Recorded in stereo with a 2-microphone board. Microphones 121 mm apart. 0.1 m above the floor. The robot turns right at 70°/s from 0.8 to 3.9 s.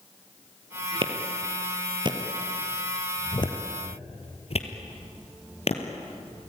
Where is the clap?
45° right (ahead or behind), 2.5 m; by 5.8 s 55° left (ahead or behind), 2.5 m.